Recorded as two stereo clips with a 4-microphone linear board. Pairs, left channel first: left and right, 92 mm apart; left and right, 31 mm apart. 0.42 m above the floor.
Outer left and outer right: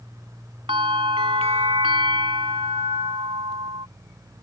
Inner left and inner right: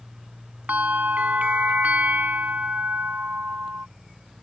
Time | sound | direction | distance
0.7 | a bell | 80° right | ?